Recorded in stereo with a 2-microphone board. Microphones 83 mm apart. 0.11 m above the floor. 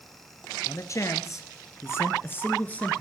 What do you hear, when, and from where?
0.7 s a man speaking: 40° left (ahead or behind), 1.8 m; by 3.0 s 15° left (ahead or behind), 1.5 m